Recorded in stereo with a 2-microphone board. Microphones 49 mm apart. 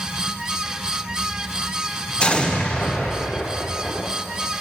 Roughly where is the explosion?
Left.